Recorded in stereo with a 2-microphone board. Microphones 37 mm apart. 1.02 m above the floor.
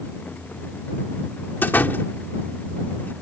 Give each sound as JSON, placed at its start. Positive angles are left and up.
{"t": 1.6, "sound": "a door slam", "side_deg": 60}